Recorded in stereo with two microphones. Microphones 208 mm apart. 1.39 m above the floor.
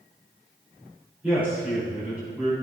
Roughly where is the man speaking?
Centre.